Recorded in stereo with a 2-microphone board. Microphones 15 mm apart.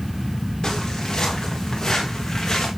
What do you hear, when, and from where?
0.6 s footsteps: 45° left (ahead or behind), 6 m; by 2.7 s 35° left (ahead or behind), 4 m